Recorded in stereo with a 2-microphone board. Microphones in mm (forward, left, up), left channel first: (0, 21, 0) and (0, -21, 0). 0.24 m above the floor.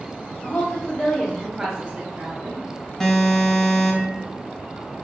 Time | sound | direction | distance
0.4 | a woman speaking | 35° left (ahead or behind) | 1.6 m
3.0 | an alarm | 10° left (ahead or behind) | 0.9 m